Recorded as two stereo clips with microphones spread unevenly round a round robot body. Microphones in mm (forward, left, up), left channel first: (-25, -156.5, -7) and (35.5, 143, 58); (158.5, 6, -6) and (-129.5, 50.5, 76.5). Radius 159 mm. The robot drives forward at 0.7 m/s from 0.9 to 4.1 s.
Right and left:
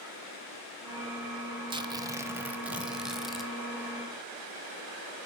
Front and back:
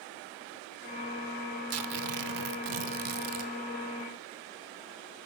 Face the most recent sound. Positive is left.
turn(degrees=175)